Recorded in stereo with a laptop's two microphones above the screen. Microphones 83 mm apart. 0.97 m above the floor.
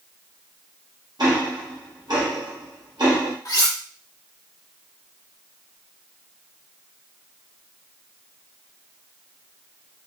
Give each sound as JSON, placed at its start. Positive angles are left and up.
{"t": 1.2, "sound": "ticking", "side_deg": -55, "distance_m": 1.0}
{"t": 3.5, "sound": "cutlery clinking", "side_deg": 45, "distance_m": 0.9}